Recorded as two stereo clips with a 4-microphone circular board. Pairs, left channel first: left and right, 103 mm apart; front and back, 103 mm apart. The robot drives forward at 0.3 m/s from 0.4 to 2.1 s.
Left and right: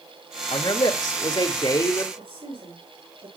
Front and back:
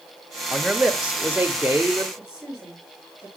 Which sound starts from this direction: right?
A woman speaking, at 2.2 s.